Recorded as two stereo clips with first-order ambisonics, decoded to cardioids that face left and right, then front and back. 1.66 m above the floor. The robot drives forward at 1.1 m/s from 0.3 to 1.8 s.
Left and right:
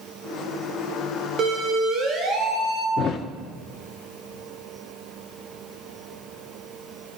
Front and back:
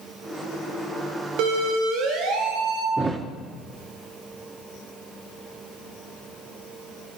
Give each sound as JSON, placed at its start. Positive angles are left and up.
{"t": 1.4, "sound": "a siren", "azimuth_deg": -150, "distance_m": 4.0}
{"t": 3.0, "sound": "a thud", "azimuth_deg": 115, "distance_m": 1.3}